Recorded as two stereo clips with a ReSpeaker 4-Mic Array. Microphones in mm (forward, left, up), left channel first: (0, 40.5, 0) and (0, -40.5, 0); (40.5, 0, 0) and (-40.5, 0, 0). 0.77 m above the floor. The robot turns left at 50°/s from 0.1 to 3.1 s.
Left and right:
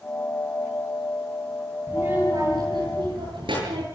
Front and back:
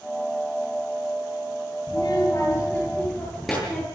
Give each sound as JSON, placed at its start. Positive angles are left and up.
{"t": 1.9, "sound": "a child speaking", "azimuth_deg": -30, "distance_m": 9.5}